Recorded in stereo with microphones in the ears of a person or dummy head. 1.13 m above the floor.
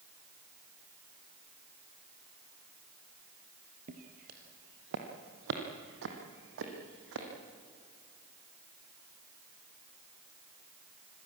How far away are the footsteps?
About 2 m.